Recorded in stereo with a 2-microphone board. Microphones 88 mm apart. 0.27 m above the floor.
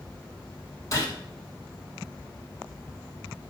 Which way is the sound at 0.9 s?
40° left (ahead or behind).